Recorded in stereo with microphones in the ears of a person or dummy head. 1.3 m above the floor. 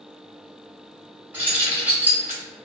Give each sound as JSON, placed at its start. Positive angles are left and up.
{"t": 1.3, "sound": "keys jangling", "side_deg": -10, "distance_m": 1.5}